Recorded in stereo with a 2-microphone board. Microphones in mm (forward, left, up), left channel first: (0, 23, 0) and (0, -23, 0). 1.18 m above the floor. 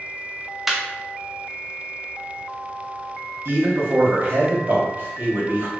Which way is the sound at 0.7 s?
5° right (ahead or behind).